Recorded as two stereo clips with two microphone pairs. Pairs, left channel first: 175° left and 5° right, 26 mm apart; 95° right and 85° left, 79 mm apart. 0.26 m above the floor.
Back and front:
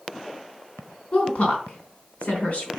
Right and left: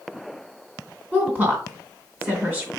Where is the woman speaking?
145° left, 3 m.